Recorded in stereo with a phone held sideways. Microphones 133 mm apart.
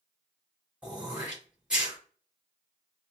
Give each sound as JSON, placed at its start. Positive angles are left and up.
{"t": 0.8, "sound": "throat clearing", "side_deg": -5, "distance_m": 2.5}